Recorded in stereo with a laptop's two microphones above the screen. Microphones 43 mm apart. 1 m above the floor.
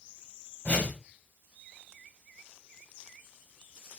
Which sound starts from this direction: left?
A whoosh, at 0.7 s.